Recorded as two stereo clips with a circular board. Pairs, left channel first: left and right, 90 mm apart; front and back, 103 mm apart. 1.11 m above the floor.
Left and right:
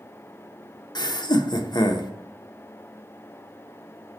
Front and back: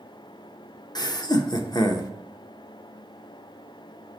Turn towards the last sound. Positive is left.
turn(degrees=50)